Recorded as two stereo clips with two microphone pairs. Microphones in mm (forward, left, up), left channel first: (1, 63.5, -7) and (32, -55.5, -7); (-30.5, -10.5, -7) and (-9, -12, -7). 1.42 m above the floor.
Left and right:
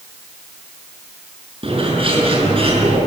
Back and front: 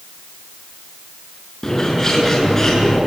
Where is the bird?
115° right, 6 m.